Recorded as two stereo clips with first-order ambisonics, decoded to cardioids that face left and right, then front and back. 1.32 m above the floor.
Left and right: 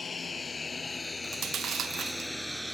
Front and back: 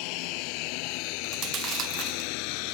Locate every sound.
0.0 s a lawn mower: 15° left; by 2.7 s 5° right
1.2 s chewing: 140° right